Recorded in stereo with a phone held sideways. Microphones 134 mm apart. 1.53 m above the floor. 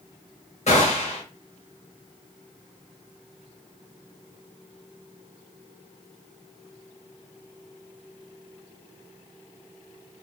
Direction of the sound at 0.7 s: 55° left (ahead or behind).